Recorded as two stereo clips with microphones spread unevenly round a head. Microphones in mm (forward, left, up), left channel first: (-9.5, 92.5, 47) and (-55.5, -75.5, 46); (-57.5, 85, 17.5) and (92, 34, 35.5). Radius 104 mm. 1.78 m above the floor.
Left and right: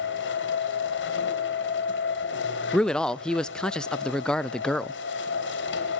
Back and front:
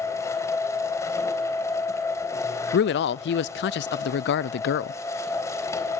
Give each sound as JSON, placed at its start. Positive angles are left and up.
{"t": 0.0, "sound": "a machine running", "azimuth_deg": 90, "distance_m": 3.5}
{"t": 2.7, "sound": "a man speaking", "azimuth_deg": 160, "distance_m": 0.5}